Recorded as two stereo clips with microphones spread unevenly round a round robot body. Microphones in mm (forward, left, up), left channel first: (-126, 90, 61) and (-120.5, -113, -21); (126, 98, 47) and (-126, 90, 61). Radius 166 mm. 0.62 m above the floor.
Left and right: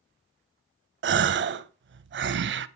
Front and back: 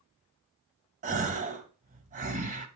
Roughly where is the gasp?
Behind right.